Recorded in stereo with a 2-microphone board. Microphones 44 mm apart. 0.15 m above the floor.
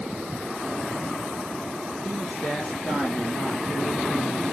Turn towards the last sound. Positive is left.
turn(degrees=45)  # may be behind; listen again after turning